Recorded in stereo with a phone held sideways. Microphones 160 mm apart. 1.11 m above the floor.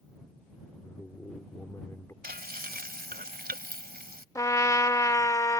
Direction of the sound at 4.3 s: 20° left (ahead or behind).